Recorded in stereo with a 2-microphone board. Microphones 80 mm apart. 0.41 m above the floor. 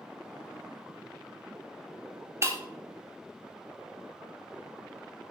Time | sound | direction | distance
2.4 | breaking glass | 35° right (ahead or behind) | 1.6 m